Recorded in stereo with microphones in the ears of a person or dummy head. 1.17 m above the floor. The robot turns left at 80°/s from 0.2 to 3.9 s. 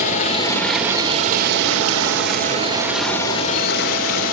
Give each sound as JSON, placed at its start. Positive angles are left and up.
{"t": 0.0, "sound": "running water", "azimuth_deg": 45, "distance_m": 2.5}